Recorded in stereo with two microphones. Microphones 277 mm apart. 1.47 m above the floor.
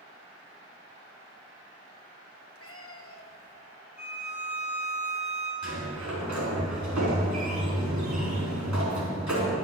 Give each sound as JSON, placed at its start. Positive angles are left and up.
{"t": 2.5, "sound": "a cat meowing", "side_deg": 50, "distance_m": 1.0}
{"t": 4.0, "sound": "a violin", "side_deg": 30, "distance_m": 3.5}
{"t": 5.6, "sound": "a sliding door", "side_deg": -90, "distance_m": 3.5}